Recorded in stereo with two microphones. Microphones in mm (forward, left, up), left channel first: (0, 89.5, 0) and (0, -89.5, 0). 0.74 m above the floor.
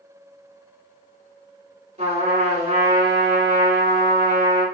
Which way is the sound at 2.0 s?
40° right (ahead or behind).